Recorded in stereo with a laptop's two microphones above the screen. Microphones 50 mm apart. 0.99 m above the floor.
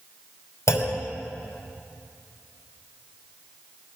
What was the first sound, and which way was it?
A clunk, 75° left (ahead or behind).